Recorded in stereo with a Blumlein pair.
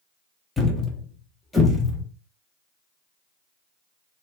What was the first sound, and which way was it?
A thud, 10° left.